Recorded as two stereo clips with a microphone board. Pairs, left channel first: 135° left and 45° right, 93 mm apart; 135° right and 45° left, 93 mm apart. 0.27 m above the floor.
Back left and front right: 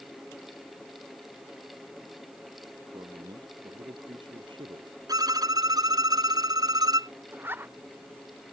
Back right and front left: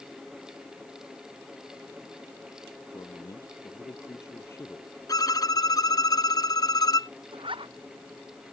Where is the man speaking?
85° right; by 5.0 s 65° right.